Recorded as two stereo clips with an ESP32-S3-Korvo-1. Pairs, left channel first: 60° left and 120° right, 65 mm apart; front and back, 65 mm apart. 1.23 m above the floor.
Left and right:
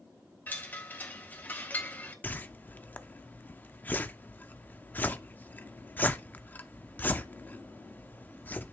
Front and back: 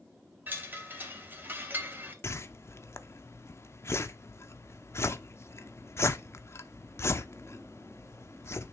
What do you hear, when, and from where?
0.5 s a chime: 120° left, 2.5 m
2.2 s a whoosh: 15° left, 0.7 m